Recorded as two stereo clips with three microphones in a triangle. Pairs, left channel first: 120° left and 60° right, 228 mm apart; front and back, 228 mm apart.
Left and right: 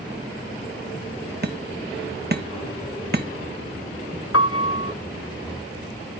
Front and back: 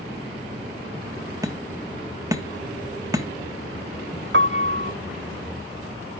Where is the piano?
140° left, 0.6 m.